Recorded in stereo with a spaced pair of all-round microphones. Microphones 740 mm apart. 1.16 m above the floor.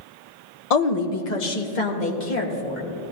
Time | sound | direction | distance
0.7 | a woman speaking | 55° left (ahead or behind) | 0.9 m